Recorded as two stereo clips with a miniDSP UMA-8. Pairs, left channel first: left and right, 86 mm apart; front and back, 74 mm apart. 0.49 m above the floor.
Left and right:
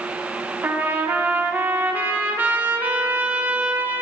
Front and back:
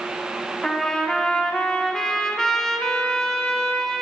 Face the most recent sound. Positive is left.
turn(degrees=-70)